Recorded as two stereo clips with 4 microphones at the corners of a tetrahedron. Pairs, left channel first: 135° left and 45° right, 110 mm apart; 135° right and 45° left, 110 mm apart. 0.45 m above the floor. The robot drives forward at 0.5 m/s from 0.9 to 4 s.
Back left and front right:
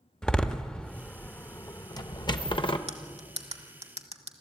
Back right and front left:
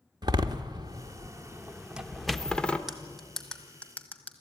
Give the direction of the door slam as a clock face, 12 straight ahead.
10 o'clock.